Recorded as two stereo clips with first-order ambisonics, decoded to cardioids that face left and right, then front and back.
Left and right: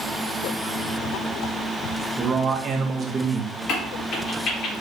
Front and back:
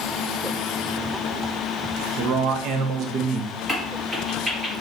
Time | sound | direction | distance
2.2 | a man speaking | 155° right | 0.6 m
3.7 | a crack | 105° left | 1.4 m